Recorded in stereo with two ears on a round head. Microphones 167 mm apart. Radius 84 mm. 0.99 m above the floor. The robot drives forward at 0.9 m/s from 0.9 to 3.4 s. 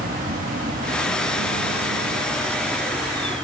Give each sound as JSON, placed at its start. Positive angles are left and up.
{"t": 0.0, "sound": "an insect", "side_deg": -45}